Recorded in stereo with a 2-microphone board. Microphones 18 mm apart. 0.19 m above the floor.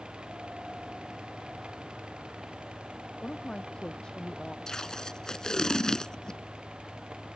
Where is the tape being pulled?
35° left (ahead or behind).